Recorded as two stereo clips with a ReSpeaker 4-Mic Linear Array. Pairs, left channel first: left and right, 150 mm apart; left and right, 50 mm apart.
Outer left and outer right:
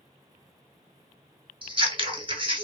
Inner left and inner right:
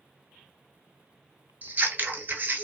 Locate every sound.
1.6 s scissors: 35° right (ahead or behind), 0.7 m